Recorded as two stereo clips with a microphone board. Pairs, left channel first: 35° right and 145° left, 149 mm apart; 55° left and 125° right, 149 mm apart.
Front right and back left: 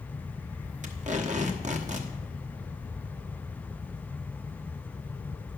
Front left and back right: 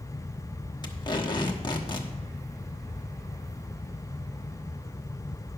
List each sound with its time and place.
0.8 s tape being pulled: 115° left, 1.1 m